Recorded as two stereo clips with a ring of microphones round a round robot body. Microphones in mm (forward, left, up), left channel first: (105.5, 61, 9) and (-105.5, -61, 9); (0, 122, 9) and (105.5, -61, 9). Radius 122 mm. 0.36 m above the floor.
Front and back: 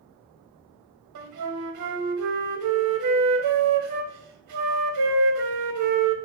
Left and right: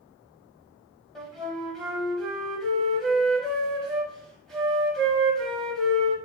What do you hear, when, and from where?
1.1 s a flute: 150° right, 0.7 m